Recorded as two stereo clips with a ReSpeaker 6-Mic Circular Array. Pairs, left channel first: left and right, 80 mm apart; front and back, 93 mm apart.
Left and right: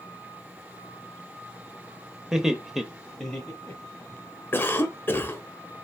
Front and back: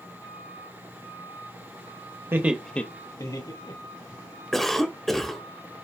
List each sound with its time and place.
2.3 s laughter: 165° right, 0.9 m; by 4.2 s 5° left, 2 m
4.5 s a cough: 85° left, 1.0 m